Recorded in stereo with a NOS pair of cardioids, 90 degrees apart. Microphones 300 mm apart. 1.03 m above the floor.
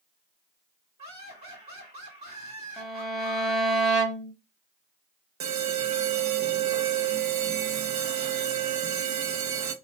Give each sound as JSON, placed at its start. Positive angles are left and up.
{"t": 1.0, "sound": "laughter", "azimuth_deg": -25, "distance_m": 2.0}
{"t": 2.8, "sound": "a violin", "azimuth_deg": 0, "distance_m": 0.9}
{"t": 5.4, "sound": "an alarm", "azimuth_deg": -65, "distance_m": 0.8}